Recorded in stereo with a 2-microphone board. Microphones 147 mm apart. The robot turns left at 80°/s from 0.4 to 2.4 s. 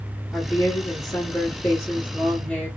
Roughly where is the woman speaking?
Centre.